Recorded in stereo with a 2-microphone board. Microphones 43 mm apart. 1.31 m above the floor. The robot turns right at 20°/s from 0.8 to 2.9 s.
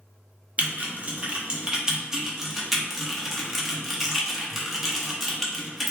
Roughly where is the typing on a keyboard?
Right.